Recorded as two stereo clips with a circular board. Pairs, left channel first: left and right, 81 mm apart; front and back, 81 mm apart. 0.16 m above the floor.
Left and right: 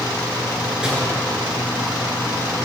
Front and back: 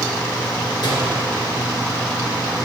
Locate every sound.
0.8 s a microwave: 15° right, 2.5 m